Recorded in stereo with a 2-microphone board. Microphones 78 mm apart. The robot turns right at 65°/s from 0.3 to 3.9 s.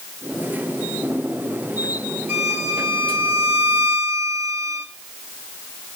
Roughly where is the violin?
Behind.